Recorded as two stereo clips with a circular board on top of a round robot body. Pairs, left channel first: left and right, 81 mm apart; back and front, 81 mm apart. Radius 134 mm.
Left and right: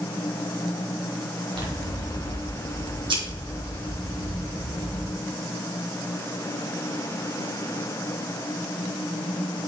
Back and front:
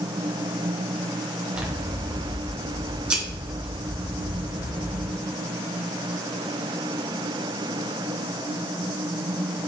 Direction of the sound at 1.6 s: 75° right.